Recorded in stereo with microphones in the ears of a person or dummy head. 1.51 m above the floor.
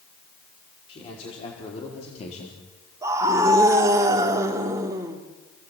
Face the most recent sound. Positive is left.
turn(degrees=-15)  # may be behind; listen again after turning